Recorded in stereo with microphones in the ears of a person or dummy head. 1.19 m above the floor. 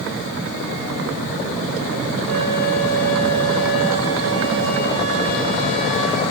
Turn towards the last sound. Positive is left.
turn(degrees=-55)  # may be behind; listen again after turning